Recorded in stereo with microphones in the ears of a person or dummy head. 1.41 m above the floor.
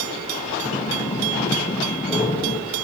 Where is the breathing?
20° left (ahead or behind), 0.9 m.